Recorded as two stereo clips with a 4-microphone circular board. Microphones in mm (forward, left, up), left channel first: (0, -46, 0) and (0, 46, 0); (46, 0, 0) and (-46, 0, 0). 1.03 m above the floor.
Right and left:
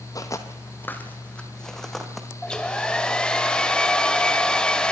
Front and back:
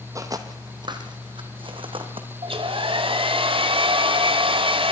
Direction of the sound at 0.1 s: 135° right.